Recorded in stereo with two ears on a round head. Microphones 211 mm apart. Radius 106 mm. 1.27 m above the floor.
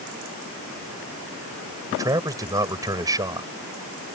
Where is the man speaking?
15° right (ahead or behind).